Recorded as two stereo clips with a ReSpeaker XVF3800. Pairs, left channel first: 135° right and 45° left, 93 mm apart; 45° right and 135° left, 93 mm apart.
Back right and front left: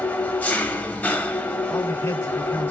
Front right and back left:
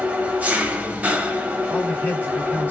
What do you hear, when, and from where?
0.0 s an engine running: straight behind, 0.8 m
1.7 s a man speaking: 95° right, 1.8 m